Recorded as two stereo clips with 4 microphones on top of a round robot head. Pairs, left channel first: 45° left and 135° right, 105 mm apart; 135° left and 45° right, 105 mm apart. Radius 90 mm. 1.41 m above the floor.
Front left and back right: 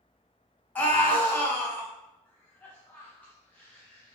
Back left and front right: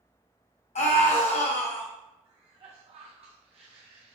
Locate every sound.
0.8 s a scream: 120° left, 1.6 m
2.2 s a cough: 30° right, 0.8 m